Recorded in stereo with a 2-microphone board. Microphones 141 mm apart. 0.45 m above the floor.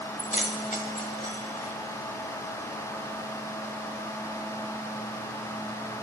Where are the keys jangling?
70° left (ahead or behind), 1.5 m.